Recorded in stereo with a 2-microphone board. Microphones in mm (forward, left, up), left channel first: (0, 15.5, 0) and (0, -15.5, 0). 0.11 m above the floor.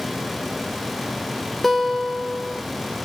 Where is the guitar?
5° left (ahead or behind), 0.8 m.